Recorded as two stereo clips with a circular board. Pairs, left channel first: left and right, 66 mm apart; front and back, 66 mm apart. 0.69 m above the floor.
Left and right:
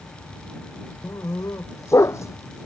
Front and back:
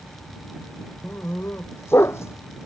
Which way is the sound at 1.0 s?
50° left.